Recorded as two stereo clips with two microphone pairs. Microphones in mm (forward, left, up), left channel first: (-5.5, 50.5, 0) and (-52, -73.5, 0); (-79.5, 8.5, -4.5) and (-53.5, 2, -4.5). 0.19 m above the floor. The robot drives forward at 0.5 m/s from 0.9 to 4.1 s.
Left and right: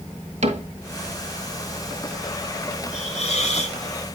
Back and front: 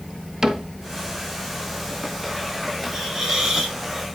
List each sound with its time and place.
0.4 s a cupboard door: 85° right, 1.5 m
2.9 s a hiss: 50° left, 3 m; by 3.8 s 60° left, 3 m